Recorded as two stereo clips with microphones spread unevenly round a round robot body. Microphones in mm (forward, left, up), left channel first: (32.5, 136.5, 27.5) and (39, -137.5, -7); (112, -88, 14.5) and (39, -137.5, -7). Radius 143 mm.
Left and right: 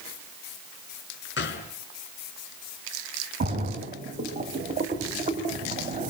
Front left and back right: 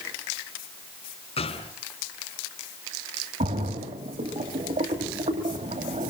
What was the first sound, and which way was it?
A gunshot, 40° left.